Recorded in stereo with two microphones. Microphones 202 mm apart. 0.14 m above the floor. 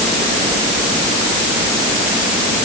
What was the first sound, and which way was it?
Only background noise.